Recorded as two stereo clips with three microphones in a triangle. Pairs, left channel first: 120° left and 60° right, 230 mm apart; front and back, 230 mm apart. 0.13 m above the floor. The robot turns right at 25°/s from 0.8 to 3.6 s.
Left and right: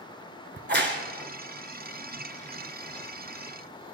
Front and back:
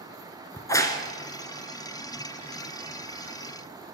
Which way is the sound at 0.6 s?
75° right.